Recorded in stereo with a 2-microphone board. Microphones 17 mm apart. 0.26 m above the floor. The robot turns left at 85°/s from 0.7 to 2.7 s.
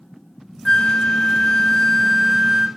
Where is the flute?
130° left, 0.8 m; by 2.7 s 35° right, 0.8 m.